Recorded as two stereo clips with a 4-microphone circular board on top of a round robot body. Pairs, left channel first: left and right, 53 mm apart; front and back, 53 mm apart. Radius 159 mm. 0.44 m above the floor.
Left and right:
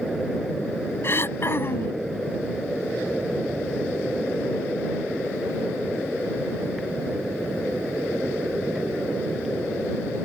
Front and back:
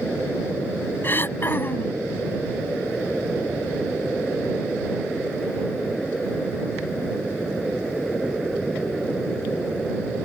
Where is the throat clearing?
50° left.